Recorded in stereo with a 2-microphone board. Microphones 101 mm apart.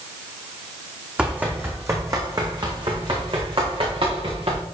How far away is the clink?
I don't hear a clink.